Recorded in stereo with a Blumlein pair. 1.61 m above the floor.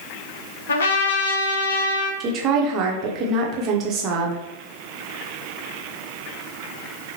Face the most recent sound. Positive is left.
turn(degrees=-30)